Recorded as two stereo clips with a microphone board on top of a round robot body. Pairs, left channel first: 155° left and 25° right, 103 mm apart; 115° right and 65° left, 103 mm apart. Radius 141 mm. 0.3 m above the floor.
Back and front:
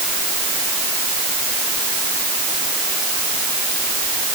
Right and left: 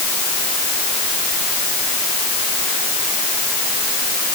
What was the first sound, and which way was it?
Only background noise.